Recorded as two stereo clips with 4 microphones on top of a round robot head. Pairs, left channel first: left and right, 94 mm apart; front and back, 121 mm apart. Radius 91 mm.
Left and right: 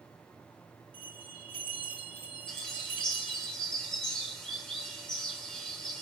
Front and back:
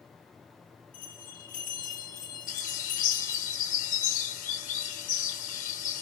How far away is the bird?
About 2.5 m.